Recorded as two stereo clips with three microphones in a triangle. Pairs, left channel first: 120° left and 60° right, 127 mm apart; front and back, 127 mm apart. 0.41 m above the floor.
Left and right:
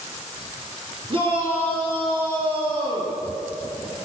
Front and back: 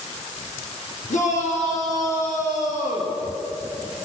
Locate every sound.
1.1 s a shout: 15° right, 9 m